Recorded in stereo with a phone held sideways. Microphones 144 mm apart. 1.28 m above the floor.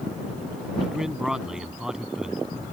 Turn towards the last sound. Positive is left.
turn(degrees=-5)  # may be behind; listen again after turning